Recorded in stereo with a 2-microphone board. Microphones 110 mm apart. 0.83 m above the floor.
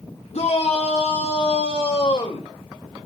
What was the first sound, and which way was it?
A shout, 80° left.